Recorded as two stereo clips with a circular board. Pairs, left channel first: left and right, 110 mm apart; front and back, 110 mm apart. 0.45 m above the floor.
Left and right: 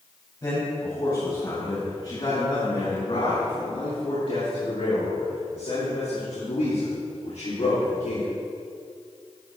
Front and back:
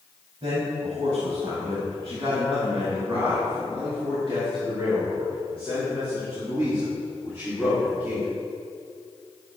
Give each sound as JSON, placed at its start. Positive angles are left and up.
{"t": 0.4, "sound": "a man speaking", "azimuth_deg": 145, "distance_m": 3.5}